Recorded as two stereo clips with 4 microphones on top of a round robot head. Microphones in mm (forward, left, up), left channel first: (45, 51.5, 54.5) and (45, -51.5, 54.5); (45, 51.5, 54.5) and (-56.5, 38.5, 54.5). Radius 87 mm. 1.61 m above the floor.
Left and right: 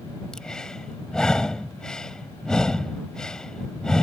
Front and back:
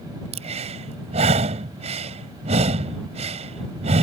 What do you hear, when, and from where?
0.3 s breathing: 175° left